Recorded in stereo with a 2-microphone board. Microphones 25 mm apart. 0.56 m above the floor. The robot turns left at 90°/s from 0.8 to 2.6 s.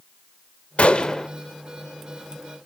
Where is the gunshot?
60° left, 1.0 m; by 1.3 s 15° left, 1.0 m.